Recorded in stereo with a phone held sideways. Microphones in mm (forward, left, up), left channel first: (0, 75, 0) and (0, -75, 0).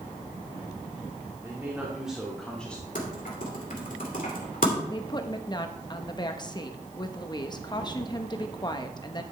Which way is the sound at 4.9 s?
30° left (ahead or behind).